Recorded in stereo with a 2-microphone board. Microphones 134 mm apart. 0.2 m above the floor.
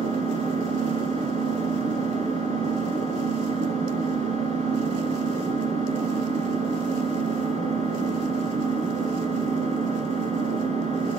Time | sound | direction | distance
0.0 | an engine running | 65° right (ahead or behind) | 1.1 m